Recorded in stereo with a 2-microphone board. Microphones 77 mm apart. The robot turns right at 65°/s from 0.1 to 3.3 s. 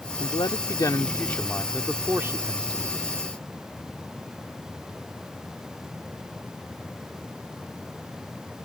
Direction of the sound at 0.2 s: 80° left.